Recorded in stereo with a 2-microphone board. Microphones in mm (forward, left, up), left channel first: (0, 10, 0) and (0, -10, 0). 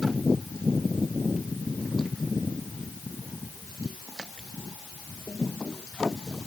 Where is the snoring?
No snoring in this recording.